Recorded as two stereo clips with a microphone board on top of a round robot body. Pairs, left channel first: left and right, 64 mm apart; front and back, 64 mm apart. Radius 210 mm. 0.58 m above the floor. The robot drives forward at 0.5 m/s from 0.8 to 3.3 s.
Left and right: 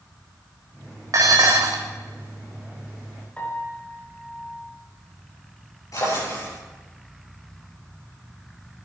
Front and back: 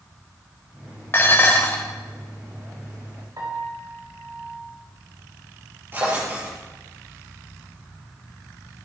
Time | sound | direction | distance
1.1 | dishes clattering | 55° right | 2.5 m
3.4 | a piano | 160° left | 5 m
5.9 | a drawer | 125° left | 6.5 m